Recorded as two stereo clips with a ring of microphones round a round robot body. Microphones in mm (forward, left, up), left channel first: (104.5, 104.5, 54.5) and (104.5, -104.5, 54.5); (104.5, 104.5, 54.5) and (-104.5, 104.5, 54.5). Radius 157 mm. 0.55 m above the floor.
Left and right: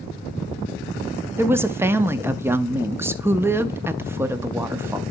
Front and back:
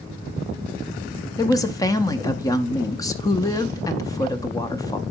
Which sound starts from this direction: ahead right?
A woman speaking, at 1.4 s.